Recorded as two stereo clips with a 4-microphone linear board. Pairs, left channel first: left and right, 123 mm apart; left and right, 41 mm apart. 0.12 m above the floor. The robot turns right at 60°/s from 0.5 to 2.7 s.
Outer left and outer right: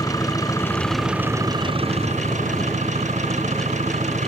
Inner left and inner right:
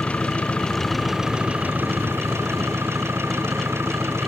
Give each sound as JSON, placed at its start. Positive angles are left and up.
{"t": 0.0, "sound": "an engine running", "azimuth_deg": 150}